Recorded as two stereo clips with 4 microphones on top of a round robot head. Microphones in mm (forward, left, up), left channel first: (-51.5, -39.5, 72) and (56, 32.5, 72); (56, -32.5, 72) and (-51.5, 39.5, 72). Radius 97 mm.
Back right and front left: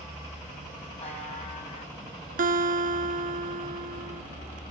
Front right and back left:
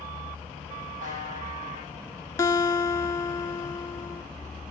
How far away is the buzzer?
About 7 m.